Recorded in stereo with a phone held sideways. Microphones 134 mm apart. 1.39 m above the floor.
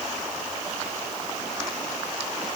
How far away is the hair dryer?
I don't hear a hair dryer.